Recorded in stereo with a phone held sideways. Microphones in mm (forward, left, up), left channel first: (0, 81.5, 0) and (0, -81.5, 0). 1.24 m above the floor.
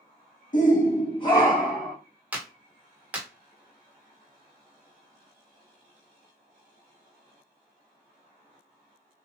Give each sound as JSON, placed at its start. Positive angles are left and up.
{"t": 0.5, "sound": "a shout", "side_deg": 55, "distance_m": 1.1}
{"t": 2.3, "sound": "a clap", "side_deg": -10, "distance_m": 0.9}